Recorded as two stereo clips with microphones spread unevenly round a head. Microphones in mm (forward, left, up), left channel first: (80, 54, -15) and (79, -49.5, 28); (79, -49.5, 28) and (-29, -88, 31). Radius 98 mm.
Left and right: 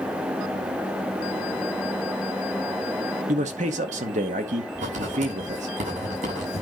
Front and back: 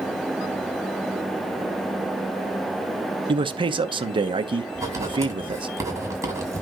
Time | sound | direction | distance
3.3 | a man speaking | 125° right | 1.1 m
4.8 | writing | 100° right | 7.5 m